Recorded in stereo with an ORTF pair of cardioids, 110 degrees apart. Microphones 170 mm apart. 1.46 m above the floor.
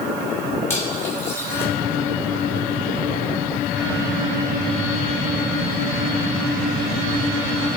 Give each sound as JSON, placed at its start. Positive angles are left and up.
{"t": 0.7, "sound": "cutlery clinking", "azimuth_deg": 15, "distance_m": 5.5}